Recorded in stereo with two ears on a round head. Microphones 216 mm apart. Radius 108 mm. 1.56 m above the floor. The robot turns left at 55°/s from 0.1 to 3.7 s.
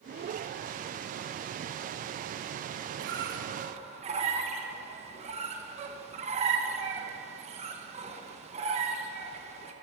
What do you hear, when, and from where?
3.0 s a squeak: 45° right (ahead or behind), 0.9 m; by 9.7 s 25° right (ahead or behind), 0.9 m